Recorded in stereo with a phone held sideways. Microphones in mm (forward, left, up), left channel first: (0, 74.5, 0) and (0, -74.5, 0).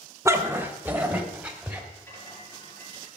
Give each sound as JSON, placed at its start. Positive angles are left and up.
{"t": 0.2, "sound": "a dog barking", "side_deg": -20, "distance_m": 1.2}
{"t": 1.9, "sound": "a rattle", "side_deg": 15, "distance_m": 6.5}